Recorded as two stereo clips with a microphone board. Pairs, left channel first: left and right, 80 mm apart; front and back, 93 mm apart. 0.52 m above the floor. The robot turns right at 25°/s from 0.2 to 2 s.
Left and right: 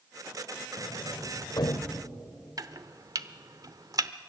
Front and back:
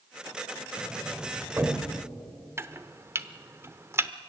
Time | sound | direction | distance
0.8 | a sliding door | 90° left | 1.1 m
2.6 | chopping | 120° right | 0.8 m